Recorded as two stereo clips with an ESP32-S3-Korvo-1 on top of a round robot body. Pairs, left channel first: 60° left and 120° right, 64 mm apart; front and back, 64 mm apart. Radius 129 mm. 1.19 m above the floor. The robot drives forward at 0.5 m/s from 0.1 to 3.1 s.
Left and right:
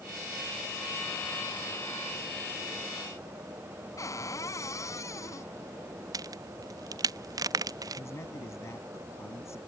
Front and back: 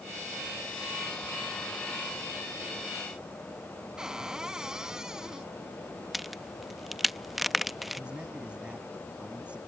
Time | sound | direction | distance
4.0 | a cupboard door | 100° left | ?
6.1 | a crack | 90° right | ?
8.0 | a man speaking | 105° left | ?